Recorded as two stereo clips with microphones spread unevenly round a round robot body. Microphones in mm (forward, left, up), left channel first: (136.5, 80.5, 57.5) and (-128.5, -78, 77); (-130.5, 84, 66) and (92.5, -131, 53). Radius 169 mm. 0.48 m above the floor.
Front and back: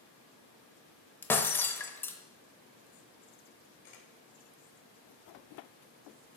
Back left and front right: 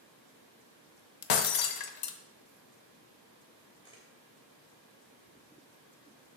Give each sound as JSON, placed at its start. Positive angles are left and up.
{"t": 1.2, "sound": "breaking glass", "azimuth_deg": 115, "distance_m": 0.8}
{"t": 3.8, "sound": "a camera shutter", "azimuth_deg": 60, "distance_m": 2.5}